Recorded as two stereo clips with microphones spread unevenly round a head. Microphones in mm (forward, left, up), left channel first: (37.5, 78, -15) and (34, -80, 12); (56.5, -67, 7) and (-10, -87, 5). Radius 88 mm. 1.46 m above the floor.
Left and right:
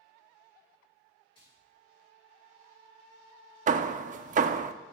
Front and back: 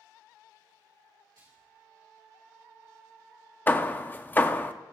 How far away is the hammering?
About 0.6 m.